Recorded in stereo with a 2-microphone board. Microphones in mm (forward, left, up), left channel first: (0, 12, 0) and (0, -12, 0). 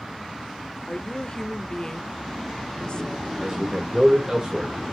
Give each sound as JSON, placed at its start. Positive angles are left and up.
{"t": 0.9, "sound": "a woman speaking", "side_deg": 40, "distance_m": 0.9}
{"t": 3.4, "sound": "a man speaking", "side_deg": -25, "distance_m": 2.0}